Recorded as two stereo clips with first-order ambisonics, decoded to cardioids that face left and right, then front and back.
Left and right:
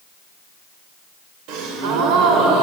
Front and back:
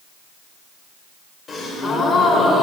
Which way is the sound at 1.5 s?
75° right.